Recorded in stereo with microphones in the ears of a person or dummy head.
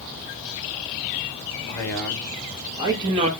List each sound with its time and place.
1.7 s a man speaking: 15° left (ahead or behind), 1.8 m; by 3.3 s 35° right (ahead or behind), 1.6 m